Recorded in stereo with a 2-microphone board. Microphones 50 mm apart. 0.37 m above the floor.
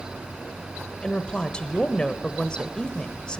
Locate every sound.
1.0 s a woman speaking: 20° left (ahead or behind), 1.1 m